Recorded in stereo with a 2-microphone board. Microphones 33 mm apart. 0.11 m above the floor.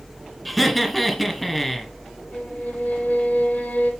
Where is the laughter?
5° left (ahead or behind), 1.4 m.